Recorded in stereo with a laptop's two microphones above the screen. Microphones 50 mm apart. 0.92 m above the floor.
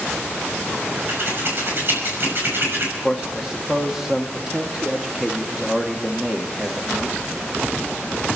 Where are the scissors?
50° right (ahead or behind), 5.5 m.